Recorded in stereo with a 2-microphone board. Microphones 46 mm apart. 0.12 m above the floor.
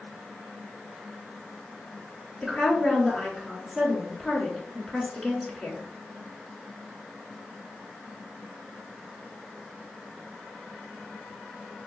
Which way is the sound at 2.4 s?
5° left (ahead or behind).